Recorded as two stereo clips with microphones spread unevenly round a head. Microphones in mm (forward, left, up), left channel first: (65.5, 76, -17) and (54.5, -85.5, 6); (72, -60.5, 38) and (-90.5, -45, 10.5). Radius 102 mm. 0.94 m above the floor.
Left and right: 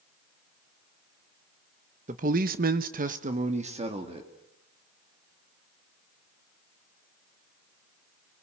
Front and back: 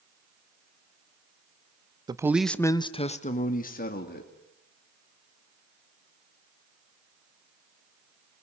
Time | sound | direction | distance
2.1 | a man speaking | 140° right | 1.1 m